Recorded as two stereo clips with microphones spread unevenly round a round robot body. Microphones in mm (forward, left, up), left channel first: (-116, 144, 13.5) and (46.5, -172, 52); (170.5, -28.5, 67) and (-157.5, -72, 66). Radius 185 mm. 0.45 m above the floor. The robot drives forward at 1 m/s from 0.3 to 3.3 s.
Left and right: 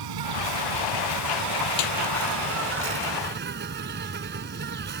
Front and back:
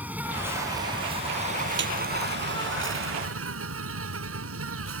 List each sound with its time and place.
0.0 s an insect: 85° right; by 5.0 s 125° right
1.8 s a snare drum: 125° left; by 1.9 s 130° left